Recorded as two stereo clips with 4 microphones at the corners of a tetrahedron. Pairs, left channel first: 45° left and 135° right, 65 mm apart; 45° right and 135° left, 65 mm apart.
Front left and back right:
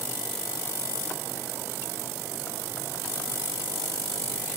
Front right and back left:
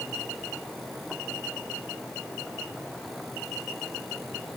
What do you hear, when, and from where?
Only background noise.